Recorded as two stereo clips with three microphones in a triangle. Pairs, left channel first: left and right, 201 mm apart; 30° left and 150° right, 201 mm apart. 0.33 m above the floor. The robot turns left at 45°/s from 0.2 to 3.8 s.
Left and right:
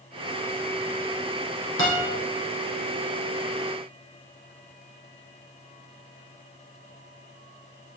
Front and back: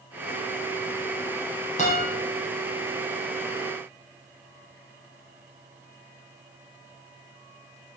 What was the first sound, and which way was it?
A guitar, 85° left.